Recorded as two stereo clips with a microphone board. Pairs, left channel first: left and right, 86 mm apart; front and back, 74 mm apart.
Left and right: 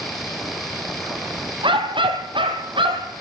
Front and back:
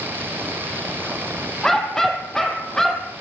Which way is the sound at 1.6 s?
85° right.